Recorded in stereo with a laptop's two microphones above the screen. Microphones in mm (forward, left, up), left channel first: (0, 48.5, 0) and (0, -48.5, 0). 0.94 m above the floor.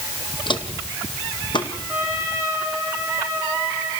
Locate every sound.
0.5 s footsteps: 60° left (ahead or behind), 1.8 m; by 1.7 s 55° left (ahead or behind), 2.5 m
1.9 s a trumpet: 10° right (ahead or behind), 9.5 m